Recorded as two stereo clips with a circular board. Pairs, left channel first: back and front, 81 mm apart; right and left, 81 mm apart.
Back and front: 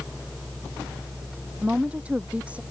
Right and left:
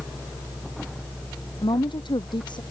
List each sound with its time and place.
1.6 s a woman speaking: 75° right